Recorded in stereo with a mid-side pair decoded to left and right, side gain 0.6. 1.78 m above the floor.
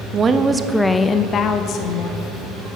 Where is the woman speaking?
35° right, 0.9 m; by 2.2 s 65° left, 1.5 m.